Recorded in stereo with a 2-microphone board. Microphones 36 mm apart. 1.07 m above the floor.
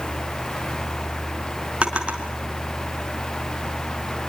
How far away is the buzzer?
No buzzer in this recording.